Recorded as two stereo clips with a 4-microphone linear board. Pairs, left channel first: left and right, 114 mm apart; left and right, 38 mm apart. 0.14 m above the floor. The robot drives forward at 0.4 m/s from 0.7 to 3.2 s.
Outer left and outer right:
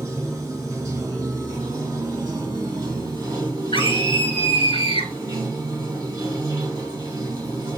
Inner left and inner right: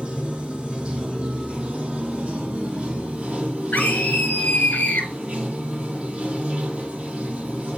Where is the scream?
50° left (ahead or behind), 2.5 m.